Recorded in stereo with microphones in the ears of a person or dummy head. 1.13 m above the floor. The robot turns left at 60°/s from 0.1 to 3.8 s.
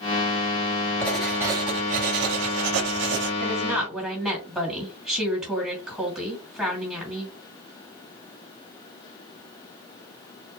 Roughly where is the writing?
Ahead.